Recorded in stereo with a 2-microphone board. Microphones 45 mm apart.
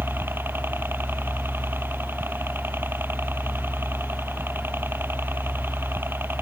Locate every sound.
0.0 s a helicopter: 55° right (ahead or behind)